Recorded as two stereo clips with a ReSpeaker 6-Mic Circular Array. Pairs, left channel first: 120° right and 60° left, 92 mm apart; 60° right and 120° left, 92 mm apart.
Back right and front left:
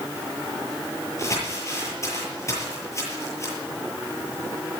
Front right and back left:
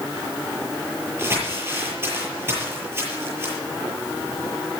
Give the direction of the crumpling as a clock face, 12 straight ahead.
6 o'clock.